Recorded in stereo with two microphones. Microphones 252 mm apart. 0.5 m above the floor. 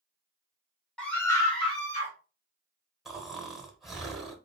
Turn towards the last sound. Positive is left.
turn(degrees=0)  # may be behind; listen again after turning